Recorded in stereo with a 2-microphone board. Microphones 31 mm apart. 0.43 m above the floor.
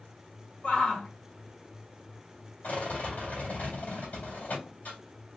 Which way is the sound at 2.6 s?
65° left (ahead or behind).